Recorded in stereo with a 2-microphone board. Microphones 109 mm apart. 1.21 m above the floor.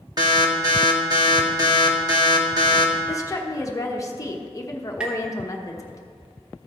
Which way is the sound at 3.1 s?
30° left (ahead or behind).